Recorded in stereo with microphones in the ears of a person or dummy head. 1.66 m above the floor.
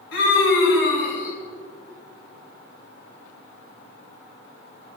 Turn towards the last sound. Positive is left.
turn(degrees=75)  # may be behind; listen again after turning